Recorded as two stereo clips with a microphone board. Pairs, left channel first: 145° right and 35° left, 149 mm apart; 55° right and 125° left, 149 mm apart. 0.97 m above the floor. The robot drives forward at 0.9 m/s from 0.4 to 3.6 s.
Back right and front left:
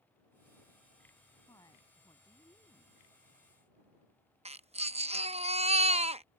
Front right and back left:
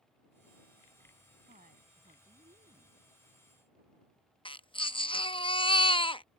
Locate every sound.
1.5 s a woman speaking: 150° left
4.5 s a baby crying: 5° right